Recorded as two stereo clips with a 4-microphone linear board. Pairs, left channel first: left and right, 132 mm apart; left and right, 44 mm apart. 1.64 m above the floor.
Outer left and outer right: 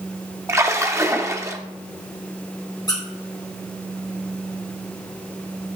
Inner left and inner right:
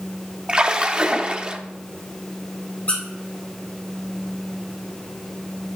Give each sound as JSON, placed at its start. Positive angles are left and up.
{"t": 0.5, "sound": "a splash", "side_deg": -20, "distance_m": 0.7}
{"t": 2.9, "sound": "a squeak", "side_deg": 30, "distance_m": 2.0}